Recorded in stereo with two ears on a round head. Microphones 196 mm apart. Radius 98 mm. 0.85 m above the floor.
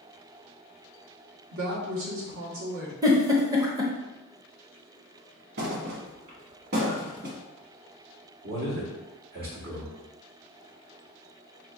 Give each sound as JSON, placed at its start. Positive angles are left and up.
{"t": 1.5, "sound": "a woman speaking", "side_deg": -65, "distance_m": 1.4}
{"t": 3.0, "sound": "a giggle", "side_deg": -15, "distance_m": 0.7}
{"t": 5.6, "sound": "a thud", "side_deg": -50, "distance_m": 1.0}
{"t": 8.4, "sound": "a man speaking", "side_deg": -45, "distance_m": 2.0}